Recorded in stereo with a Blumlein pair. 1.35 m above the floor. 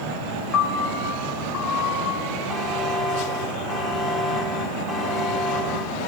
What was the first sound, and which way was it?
A piano, 30° left.